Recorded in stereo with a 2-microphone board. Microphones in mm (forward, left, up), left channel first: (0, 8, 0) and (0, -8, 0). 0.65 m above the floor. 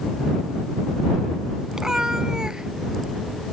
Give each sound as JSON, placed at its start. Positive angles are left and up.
{"t": 1.7, "sound": "a cat meowing", "side_deg": -25}